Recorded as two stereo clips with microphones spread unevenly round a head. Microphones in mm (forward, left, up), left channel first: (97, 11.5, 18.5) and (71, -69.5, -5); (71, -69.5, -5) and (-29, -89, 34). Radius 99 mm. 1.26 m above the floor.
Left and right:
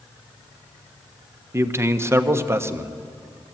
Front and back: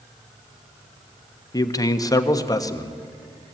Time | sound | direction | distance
1.5 | a man speaking | 45° right | 1.4 m